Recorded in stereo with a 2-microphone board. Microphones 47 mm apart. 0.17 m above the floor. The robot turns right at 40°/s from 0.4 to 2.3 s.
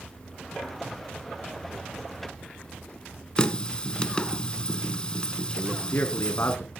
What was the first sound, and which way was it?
A running tap, 20° left (ahead or behind).